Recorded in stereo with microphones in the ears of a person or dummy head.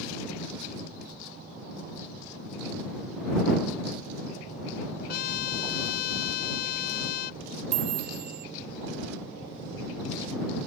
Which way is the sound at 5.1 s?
60° left (ahead or behind).